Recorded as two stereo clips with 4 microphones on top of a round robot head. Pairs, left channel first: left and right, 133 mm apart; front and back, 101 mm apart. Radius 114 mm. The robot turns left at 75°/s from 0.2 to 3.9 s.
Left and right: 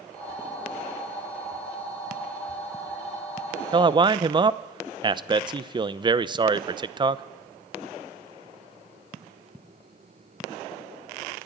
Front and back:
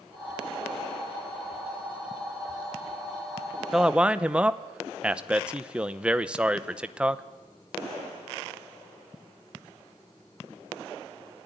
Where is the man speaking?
95° right, 0.9 m; by 7.2 s 105° right, 0.9 m.